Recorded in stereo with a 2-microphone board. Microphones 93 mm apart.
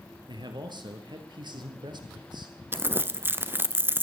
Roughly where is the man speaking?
Right.